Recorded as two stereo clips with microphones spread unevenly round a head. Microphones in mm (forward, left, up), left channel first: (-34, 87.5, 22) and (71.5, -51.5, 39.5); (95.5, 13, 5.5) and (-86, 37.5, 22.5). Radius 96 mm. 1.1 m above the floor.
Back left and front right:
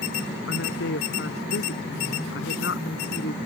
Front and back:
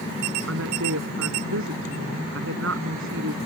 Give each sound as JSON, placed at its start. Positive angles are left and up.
{"t": 0.5, "sound": "a woman speaking", "azimuth_deg": 160}